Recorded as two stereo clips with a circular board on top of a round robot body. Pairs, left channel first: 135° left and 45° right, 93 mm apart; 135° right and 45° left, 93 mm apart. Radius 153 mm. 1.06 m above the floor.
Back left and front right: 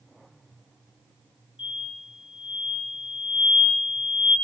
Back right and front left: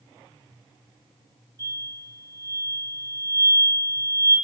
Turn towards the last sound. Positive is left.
turn(degrees=100)